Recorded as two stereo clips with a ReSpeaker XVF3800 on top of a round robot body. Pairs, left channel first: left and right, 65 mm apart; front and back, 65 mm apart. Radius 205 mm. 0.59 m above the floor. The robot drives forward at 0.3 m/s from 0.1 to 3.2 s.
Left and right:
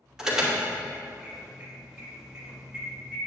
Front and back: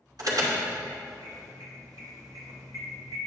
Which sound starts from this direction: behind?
An alarm, at 0.2 s.